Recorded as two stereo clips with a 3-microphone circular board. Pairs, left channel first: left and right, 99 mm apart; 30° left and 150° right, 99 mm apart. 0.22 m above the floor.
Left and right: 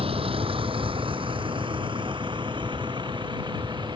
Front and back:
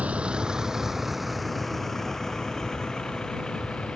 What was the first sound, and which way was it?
A vehicle, 75° right.